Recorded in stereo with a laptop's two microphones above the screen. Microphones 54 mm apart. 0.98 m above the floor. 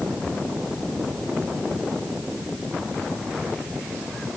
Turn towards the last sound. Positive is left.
No sound to turn to.